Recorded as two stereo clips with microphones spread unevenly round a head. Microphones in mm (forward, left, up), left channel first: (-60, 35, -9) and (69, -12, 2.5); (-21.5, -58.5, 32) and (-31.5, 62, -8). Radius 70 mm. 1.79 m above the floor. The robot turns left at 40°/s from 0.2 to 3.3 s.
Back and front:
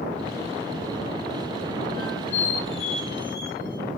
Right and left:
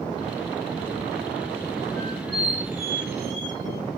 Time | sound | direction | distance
2.0 | a squeak | 145° right | 2.5 m